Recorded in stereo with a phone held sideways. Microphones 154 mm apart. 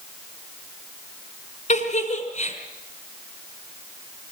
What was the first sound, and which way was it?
A giggle, 50° left (ahead or behind).